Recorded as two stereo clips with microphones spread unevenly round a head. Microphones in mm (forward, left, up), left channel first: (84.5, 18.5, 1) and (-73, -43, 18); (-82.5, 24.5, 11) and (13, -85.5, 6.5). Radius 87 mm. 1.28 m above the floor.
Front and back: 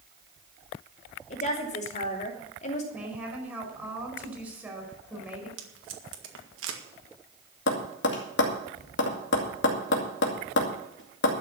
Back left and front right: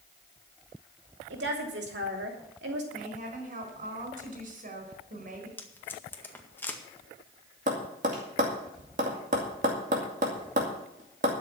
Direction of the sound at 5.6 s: 155° right.